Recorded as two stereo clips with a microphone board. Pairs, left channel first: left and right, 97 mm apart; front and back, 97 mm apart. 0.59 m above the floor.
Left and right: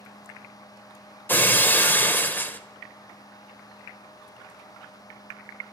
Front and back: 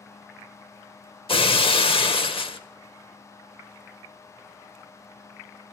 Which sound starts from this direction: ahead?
Breaking glass, at 1.3 s.